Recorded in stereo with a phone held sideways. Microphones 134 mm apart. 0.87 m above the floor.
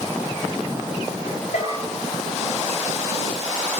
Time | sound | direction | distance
1.5 | a bell | 75° left (ahead or behind) | 9.5 m